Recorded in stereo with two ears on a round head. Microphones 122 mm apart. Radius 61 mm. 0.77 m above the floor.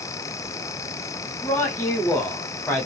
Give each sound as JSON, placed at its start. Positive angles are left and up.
{"t": 1.4, "sound": "a man speaking", "side_deg": 15, "distance_m": 1.3}